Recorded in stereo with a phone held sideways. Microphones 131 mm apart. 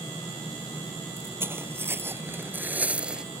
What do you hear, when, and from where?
1.2 s footsteps: 15° right (ahead or behind); by 3.2 s 5° right (ahead or behind)